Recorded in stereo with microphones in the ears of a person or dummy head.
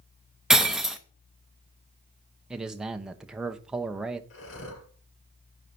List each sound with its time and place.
0.5 s breaking glass: centre (ahead or behind), 0.7 m
2.5 s a man speaking: 5° right (ahead or behind), 0.9 m
4.3 s breathing: 65° left (ahead or behind), 4.5 m